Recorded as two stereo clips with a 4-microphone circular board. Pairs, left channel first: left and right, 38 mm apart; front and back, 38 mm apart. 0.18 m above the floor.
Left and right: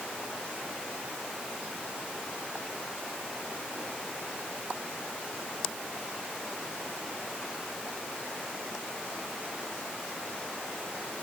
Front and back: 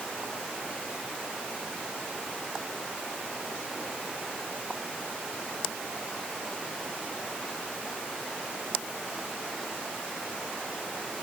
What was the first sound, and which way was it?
Only background noise.